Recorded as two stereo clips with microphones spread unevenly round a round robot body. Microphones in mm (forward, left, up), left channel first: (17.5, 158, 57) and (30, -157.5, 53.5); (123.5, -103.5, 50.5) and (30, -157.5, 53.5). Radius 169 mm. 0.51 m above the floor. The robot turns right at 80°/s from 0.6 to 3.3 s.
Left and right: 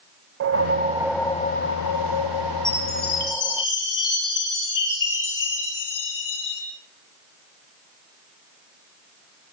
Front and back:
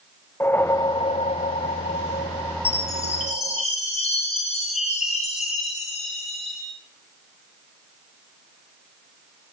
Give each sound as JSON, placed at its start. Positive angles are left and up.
{"t": 0.4, "sound": "a whoosh", "azimuth_deg": -40, "distance_m": 0.5}
{"t": 2.6, "sound": "a chime", "azimuth_deg": 15, "distance_m": 6.0}